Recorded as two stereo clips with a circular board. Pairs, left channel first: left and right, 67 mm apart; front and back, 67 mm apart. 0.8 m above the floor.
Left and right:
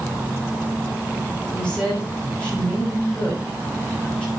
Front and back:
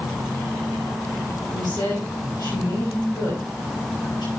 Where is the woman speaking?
15° left, 5.5 m.